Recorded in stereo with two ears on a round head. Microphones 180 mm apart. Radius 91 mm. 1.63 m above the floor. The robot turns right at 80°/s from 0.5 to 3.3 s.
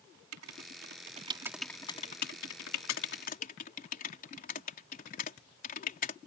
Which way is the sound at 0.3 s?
85° right.